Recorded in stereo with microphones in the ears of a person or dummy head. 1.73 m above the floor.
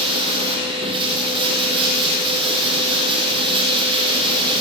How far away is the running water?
About 6 m.